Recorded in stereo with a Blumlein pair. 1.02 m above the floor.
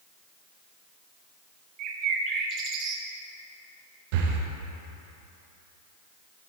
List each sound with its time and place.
1.8 s a bird: 35° right, 0.6 m
4.1 s breathing: 50° right, 0.7 m